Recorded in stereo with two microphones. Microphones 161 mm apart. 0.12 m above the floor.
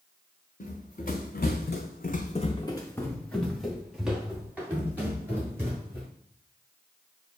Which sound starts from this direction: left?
Running footsteps, at 0.6 s.